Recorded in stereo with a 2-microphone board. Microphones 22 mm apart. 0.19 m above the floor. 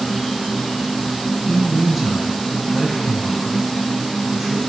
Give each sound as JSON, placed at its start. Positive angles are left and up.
{"t": 0.0, "sound": "an insect", "side_deg": 20, "distance_m": 0.9}
{"t": 1.5, "sound": "a man speaking", "side_deg": 10, "distance_m": 1.4}